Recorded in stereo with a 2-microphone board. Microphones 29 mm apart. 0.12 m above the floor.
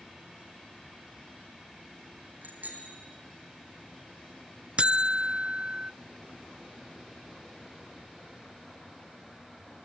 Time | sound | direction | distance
2.4 | a bicycle bell | 70° right (ahead or behind) | 4 m
4.8 | a buzzer | 40° right (ahead or behind) | 0.6 m